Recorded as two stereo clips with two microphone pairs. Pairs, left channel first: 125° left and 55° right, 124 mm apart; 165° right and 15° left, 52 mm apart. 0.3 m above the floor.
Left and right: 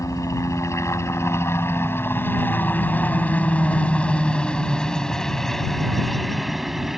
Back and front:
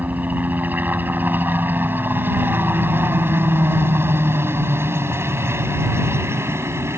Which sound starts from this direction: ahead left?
A helicopter, at 0.0 s.